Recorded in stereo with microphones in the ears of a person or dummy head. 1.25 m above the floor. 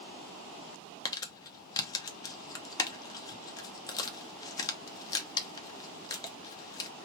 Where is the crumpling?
25° left (ahead or behind), 0.8 m.